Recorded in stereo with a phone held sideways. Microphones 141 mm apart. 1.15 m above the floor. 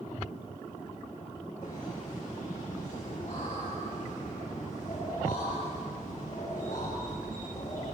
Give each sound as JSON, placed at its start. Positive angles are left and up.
{"t": 1.6, "sound": "laughter", "side_deg": 55, "distance_m": 6.5}